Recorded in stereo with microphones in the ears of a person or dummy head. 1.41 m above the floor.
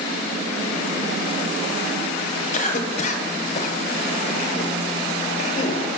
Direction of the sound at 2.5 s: 45° left (ahead or behind).